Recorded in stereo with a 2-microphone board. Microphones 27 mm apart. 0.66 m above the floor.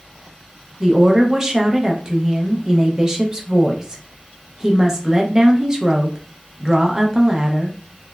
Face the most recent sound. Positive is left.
turn(degrees=-20)  # may be behind; listen again after turning